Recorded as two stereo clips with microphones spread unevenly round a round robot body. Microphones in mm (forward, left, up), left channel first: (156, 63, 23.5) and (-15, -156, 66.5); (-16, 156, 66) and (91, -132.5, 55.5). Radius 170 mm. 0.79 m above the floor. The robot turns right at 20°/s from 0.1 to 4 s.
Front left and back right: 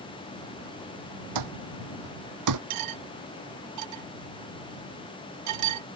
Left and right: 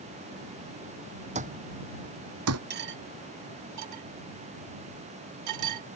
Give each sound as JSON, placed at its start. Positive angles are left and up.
{"t": 1.4, "sound": "an alarm clock", "azimuth_deg": -140}
{"t": 2.7, "sound": "cutlery clinking", "azimuth_deg": -130}